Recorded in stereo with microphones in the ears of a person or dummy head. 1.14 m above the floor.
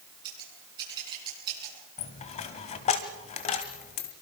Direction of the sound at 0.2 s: 25° right (ahead or behind).